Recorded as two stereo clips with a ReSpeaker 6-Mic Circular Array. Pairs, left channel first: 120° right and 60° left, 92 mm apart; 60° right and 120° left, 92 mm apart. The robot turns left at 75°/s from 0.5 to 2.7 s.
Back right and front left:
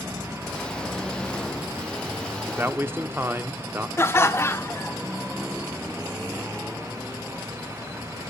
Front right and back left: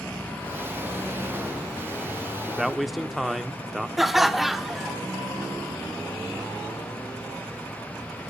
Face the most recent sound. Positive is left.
turn(degrees=-155)